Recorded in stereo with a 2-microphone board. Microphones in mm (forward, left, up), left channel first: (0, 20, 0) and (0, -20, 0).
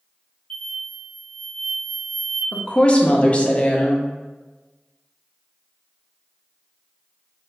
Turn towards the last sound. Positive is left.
turn(degrees=30)  # may be behind; listen again after turning